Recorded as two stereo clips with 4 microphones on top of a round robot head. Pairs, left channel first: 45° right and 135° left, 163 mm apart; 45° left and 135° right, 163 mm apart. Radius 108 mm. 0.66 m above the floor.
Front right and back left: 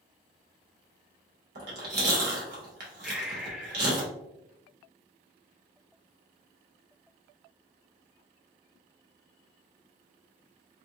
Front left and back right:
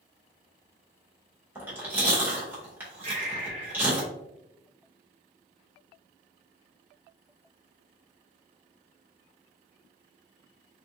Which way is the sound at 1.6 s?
150° left.